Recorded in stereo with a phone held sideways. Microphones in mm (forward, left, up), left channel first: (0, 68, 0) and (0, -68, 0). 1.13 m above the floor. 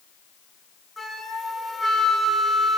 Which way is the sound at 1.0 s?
Centre (ahead or behind).